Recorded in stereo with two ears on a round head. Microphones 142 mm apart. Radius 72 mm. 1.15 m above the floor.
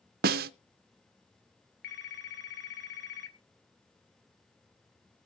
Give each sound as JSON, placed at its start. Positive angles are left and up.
{"t": 0.2, "sound": "a snare drum", "side_deg": -65, "distance_m": 0.6}
{"t": 1.8, "sound": "a phone ringing", "side_deg": 70, "distance_m": 1.5}